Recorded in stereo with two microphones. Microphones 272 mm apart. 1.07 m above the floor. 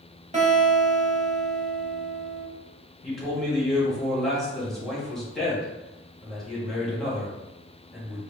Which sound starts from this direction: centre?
A man speaking, at 3.0 s.